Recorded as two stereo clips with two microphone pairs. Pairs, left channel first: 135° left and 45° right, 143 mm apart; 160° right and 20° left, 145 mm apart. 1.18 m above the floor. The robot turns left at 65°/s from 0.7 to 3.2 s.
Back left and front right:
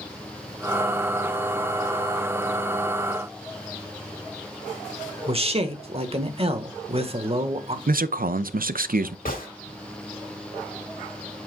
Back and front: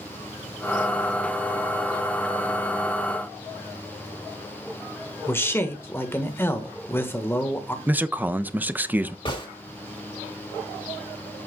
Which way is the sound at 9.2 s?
145° left.